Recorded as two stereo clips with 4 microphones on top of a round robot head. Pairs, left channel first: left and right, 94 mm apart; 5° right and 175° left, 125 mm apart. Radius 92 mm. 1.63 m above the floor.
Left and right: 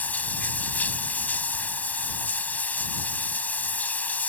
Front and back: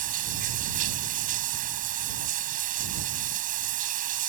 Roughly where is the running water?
Behind.